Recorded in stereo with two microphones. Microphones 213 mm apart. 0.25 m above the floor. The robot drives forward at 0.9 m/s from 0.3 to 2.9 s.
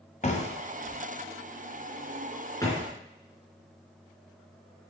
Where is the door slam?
35° left (ahead or behind), 1.3 m; by 2.9 s 15° left (ahead or behind), 3 m.